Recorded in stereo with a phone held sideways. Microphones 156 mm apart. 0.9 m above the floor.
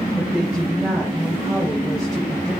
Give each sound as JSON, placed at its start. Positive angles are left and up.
{"t": 0.2, "sound": "a woman speaking", "side_deg": 0, "distance_m": 5.0}